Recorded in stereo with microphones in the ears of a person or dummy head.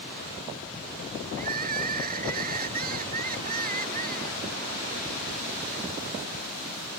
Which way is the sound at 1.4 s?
45° right (ahead or behind).